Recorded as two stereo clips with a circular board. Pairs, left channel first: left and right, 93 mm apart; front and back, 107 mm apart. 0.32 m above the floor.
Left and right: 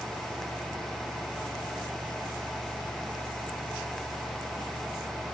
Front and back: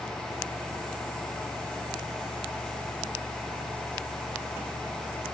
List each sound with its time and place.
Only background noise.